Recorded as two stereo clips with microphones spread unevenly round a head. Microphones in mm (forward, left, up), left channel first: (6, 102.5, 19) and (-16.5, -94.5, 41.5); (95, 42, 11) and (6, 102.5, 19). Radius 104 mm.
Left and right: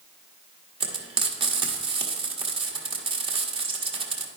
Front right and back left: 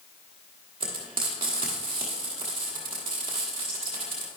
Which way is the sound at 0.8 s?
155° right.